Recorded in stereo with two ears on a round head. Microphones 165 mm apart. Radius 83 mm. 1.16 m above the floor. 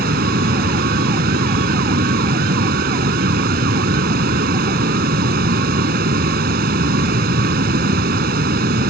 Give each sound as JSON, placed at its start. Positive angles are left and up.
{"t": 0.0, "sound": "running water", "side_deg": -55}